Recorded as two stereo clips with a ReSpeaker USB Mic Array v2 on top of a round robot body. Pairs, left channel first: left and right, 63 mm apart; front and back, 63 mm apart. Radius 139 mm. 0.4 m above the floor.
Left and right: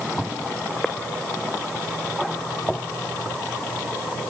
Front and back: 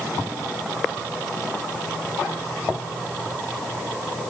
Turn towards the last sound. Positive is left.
No sound to turn to.